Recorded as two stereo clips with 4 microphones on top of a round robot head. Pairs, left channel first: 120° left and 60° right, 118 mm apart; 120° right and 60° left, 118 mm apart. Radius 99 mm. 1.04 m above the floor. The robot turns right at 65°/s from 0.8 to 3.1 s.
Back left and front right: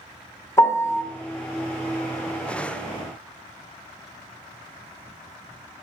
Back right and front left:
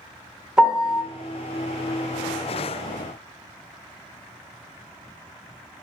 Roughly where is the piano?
Behind left.